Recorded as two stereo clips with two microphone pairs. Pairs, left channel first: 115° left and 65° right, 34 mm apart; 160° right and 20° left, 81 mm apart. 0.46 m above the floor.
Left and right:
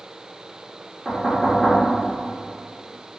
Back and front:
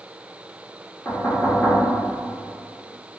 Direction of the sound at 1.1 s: 130° right.